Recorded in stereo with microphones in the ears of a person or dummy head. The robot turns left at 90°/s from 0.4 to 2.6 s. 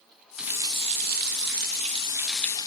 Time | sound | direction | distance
0.4 | a running tap | 5° right | 1.4 m